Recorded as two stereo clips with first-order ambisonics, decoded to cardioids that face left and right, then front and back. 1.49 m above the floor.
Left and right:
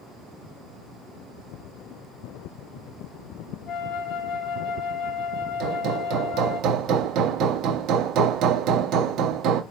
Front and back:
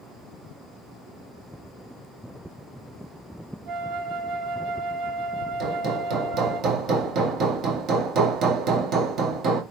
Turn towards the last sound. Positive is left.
turn(degrees=-130)